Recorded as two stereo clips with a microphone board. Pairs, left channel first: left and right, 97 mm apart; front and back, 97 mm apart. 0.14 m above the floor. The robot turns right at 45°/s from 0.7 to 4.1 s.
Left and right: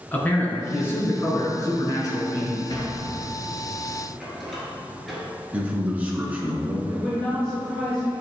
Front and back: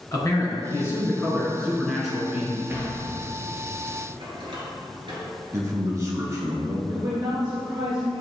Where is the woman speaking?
170° left, 1.8 m.